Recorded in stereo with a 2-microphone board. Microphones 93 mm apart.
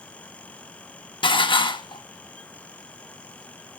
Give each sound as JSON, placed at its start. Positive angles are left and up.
{"t": 1.2, "sound": "dishes clattering", "side_deg": 60, "distance_m": 0.9}